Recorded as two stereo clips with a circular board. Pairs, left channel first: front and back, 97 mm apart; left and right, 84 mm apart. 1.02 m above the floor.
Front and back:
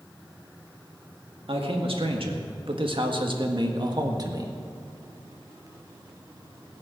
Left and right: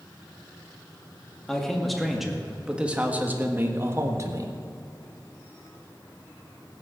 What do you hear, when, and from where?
1.5 s a man speaking: 175° left, 2.0 m; by 4.5 s 130° right, 1.6 m